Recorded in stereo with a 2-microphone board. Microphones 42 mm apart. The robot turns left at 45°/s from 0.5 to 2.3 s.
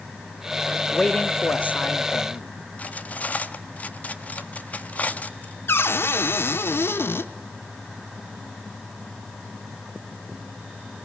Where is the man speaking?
165° left, 0.7 m; by 2.5 s 100° left, 0.7 m.